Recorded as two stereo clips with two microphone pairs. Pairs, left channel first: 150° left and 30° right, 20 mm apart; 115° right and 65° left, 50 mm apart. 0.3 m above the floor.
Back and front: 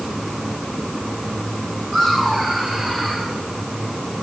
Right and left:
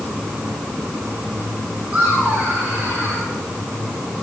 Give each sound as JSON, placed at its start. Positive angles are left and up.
{"t": 1.9, "sound": "laughter", "azimuth_deg": 5, "distance_m": 4.0}